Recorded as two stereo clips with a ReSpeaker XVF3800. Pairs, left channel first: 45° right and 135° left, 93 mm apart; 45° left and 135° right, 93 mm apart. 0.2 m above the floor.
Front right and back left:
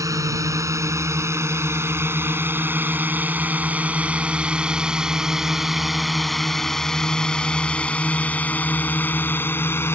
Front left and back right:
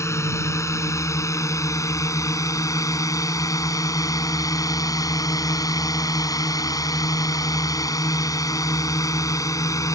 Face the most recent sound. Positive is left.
turn(degrees=10)